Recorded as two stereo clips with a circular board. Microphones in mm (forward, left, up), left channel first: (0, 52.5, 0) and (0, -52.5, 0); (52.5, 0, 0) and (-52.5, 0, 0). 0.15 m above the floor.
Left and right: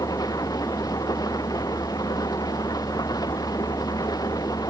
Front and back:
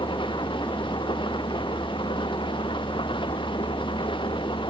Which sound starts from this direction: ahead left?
An engine running, at 0.0 s.